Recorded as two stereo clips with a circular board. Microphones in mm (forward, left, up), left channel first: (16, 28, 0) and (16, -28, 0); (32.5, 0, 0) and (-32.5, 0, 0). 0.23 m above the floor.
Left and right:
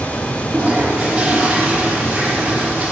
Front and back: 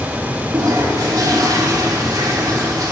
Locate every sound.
0.5 s a toilet flushing: 165° right, 7.5 m